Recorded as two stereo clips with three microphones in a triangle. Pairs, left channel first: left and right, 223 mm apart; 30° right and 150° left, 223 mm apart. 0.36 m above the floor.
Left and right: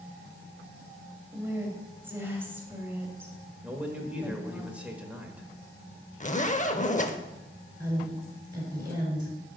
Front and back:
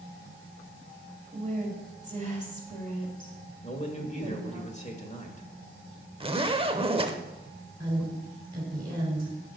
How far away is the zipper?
About 0.7 m.